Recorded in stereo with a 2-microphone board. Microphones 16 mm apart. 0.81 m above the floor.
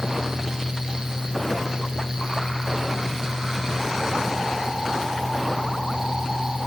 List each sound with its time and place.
Only background noise.